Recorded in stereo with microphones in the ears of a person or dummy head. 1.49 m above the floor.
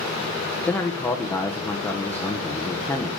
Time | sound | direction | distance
0.7 | a man speaking | 5° left (ahead or behind) | 1.2 m